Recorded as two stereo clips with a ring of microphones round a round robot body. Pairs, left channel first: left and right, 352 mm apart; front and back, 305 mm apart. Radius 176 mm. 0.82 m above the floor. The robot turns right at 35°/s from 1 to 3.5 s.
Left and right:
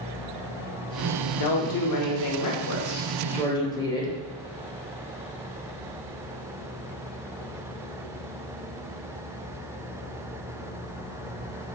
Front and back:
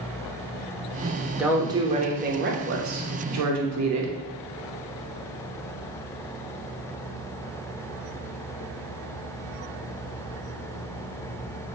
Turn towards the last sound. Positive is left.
turn(degrees=170)